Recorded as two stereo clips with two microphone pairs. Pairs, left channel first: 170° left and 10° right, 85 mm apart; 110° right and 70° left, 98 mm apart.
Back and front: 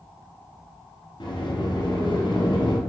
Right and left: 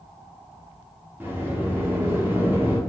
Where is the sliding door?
140° left, 0.9 m.